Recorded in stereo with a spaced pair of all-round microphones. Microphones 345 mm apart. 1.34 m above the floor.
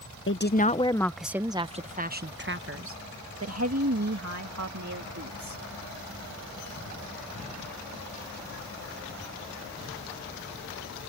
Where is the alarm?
I don't hear an alarm.